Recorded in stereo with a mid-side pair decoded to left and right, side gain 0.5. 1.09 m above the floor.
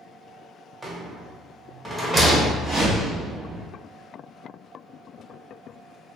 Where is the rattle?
15° right, 0.9 m.